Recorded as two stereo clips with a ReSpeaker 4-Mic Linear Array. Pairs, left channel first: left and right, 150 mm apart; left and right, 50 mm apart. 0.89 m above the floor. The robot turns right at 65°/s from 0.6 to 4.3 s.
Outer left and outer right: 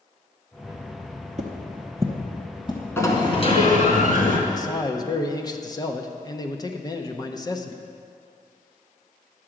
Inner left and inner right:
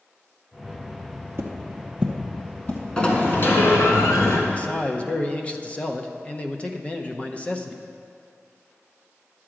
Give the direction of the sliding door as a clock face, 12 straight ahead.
11 o'clock.